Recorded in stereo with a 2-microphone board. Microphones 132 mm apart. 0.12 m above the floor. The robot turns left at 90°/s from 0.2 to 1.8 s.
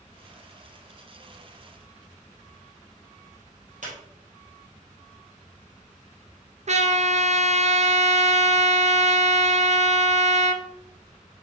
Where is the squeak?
65° right (ahead or behind), 2.5 m.